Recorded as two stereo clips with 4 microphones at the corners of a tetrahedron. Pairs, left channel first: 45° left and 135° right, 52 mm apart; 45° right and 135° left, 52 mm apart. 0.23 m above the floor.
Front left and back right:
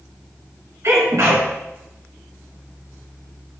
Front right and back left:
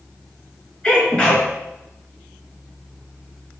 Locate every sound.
0.8 s a sneeze: 115° right, 3 m